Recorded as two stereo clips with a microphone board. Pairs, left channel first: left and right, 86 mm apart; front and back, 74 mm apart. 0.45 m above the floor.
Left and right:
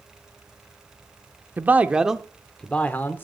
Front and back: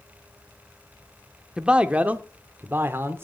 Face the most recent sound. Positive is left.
turn(degrees=140)